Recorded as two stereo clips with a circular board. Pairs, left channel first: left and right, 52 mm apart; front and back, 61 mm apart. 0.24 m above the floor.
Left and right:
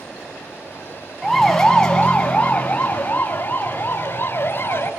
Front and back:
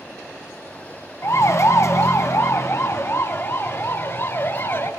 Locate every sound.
1.2 s a siren: 5° left, 2.5 m; by 4.9 s 45° left, 5.5 m